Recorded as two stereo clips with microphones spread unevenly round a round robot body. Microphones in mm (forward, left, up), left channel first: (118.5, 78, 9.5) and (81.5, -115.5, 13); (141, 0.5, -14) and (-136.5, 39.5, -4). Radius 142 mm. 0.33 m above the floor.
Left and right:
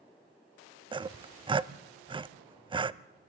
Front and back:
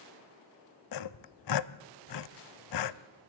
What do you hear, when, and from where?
0.9 s sawing: 30° right, 0.6 m